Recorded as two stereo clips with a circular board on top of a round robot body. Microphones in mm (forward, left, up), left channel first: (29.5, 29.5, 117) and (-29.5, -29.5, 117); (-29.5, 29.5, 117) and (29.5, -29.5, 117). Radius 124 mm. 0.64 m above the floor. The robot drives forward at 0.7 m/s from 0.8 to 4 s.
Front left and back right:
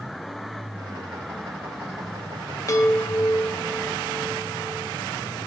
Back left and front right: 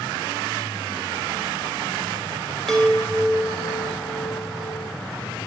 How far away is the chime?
About 1.1 m.